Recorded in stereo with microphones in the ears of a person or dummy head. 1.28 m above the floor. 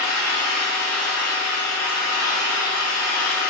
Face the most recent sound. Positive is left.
turn(degrees=30)  # may be behind; listen again after turning